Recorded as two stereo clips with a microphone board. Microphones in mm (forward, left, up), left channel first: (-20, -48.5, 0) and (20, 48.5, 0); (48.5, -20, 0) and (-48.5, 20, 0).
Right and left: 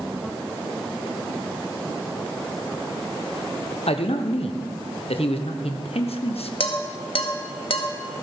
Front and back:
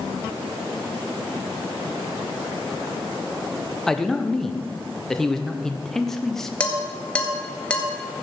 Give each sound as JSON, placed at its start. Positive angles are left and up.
{"t": 3.9, "sound": "a man speaking", "azimuth_deg": -110, "distance_m": 1.2}
{"t": 6.6, "sound": "dishes clattering", "azimuth_deg": -100, "distance_m": 1.8}